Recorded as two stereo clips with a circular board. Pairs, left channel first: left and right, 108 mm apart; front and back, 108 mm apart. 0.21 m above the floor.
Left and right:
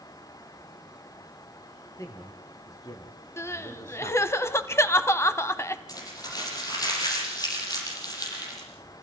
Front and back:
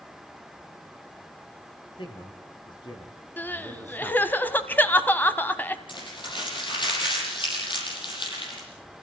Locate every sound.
2.0 s a man speaking: 30° left, 4.5 m; by 4.4 s 70° left, 2.5 m
3.4 s crying: 55° left, 1.0 m
5.9 s crumpling: 40° left, 7 m